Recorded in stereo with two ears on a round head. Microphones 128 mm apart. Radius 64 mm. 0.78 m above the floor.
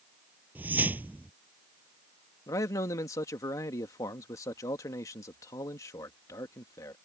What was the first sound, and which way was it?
A whoosh, 10° right (ahead or behind).